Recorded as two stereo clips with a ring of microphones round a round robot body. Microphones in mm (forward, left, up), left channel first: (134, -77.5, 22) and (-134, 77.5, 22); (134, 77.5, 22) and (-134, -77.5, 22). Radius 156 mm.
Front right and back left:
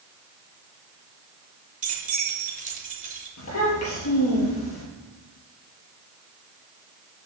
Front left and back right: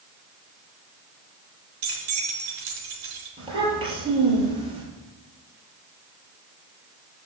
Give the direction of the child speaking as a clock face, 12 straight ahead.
3 o'clock.